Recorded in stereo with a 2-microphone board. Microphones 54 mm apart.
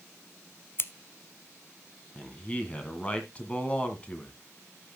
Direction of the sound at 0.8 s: 45° left (ahead or behind).